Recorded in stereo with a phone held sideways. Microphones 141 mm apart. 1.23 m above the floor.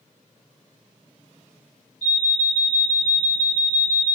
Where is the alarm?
55° left (ahead or behind), 1.8 m.